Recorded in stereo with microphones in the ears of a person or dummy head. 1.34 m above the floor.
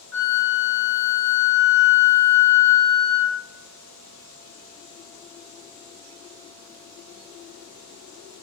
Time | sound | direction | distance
0.1 | a flute | 80° left | 1.0 m